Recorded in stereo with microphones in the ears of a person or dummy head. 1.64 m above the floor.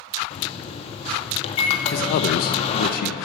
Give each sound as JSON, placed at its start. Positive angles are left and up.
{"t": 0.3, "sound": "a microwave", "side_deg": 40, "distance_m": 1.9}
{"t": 1.9, "sound": "a man speaking", "side_deg": 55, "distance_m": 1.0}